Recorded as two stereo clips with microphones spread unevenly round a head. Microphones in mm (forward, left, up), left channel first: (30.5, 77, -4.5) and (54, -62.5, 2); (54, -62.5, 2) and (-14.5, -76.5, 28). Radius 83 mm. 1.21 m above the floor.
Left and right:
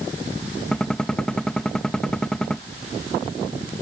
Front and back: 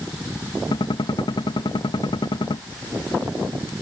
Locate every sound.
0.7 s a gunshot: 15° left